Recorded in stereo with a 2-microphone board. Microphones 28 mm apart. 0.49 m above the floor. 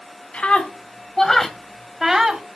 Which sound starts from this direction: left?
A scream, at 0.3 s.